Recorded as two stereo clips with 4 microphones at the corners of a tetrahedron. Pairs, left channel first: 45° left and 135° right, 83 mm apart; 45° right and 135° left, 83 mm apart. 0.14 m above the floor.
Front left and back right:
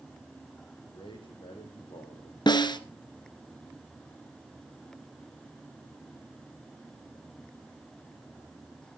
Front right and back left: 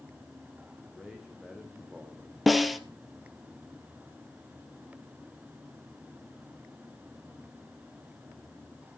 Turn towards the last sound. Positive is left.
turn(degrees=45)